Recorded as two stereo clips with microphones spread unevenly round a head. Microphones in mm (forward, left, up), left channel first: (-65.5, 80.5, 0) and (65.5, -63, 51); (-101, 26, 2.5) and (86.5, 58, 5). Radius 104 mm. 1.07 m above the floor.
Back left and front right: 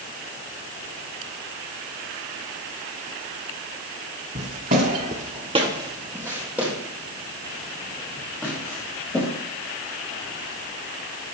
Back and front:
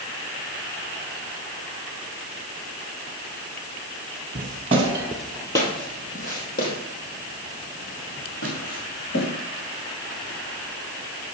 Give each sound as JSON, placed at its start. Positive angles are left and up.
{"t": 4.3, "sound": "footsteps", "azimuth_deg": -25, "distance_m": 1.7}